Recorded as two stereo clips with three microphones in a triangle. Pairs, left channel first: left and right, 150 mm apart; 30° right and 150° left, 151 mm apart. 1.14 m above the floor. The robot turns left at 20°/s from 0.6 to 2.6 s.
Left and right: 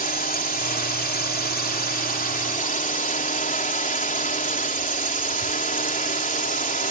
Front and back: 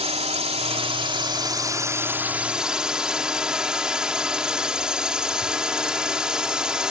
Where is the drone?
105° left; by 6.9 s 65° left.